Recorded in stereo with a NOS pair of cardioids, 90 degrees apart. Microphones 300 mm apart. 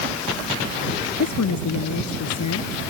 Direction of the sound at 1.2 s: 70° left.